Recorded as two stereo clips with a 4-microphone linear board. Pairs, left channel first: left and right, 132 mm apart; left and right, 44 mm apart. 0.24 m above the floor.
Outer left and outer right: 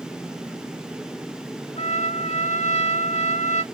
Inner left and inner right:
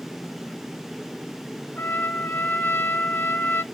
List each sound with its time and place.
1.8 s a trumpet: 60° left (ahead or behind), 0.8 m